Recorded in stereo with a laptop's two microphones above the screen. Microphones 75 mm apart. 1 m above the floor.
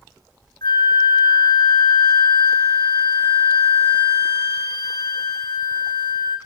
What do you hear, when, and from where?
0.6 s a flute: 65° left (ahead or behind), 1.5 m